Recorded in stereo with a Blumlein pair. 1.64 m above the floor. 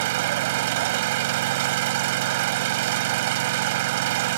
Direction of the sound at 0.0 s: 50° right.